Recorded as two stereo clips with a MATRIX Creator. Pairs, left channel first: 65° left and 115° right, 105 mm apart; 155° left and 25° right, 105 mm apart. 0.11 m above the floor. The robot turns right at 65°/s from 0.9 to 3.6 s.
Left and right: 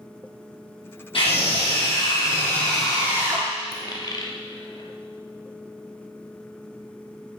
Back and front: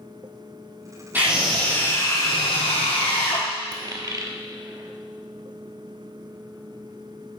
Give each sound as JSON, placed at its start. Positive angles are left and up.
{"t": 1.1, "sound": "a scream", "azimuth_deg": 50, "distance_m": 3.5}
{"t": 3.7, "sound": "a dropped coin", "azimuth_deg": 25, "distance_m": 0.9}